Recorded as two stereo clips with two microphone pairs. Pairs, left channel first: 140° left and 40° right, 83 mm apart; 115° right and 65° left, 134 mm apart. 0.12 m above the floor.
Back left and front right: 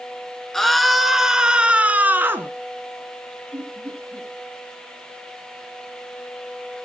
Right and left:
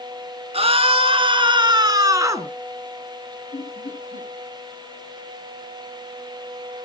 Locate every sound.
0.5 s a scream: 60° left, 2 m; by 2.5 s 5° left, 2 m
3.5 s laughter: 105° right, 8.5 m